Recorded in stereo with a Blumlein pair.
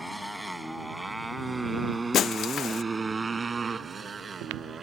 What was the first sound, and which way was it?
A motorcycle, 5° left.